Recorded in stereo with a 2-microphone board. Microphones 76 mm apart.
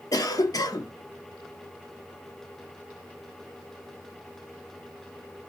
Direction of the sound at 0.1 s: 50° left (ahead or behind).